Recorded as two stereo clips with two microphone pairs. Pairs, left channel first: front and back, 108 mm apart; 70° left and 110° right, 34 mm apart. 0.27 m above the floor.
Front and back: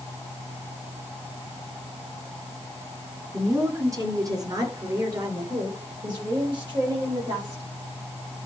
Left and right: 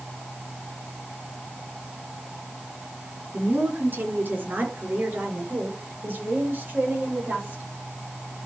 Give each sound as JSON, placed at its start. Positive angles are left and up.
{"t": 3.3, "sound": "a woman speaking", "azimuth_deg": -115, "distance_m": 2.0}